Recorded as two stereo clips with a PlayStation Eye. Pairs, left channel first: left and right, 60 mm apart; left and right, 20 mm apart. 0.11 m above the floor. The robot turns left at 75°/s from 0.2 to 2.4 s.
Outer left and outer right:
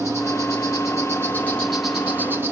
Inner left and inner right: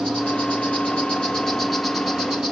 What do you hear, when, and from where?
0.0 s an insect: 120° left, 3.5 m; by 2.5 s 45° right, 3.5 m